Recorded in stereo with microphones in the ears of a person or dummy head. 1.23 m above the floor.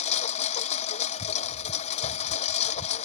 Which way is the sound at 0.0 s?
35° left (ahead or behind).